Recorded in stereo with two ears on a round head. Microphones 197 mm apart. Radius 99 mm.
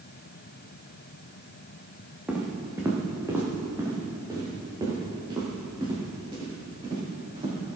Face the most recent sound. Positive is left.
turn(degrees=-25)  # may be behind; listen again after turning